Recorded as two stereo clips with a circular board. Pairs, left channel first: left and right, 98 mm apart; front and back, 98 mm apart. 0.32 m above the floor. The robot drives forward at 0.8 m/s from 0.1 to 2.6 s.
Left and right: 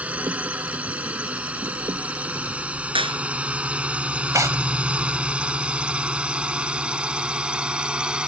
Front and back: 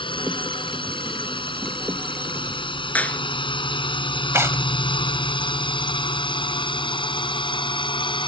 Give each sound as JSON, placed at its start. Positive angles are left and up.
{"t": 0.0, "sound": "a drone", "azimuth_deg": -15}
{"t": 3.0, "sound": "a clap", "azimuth_deg": -75}
{"t": 4.3, "sound": "tearing paper", "azimuth_deg": -130}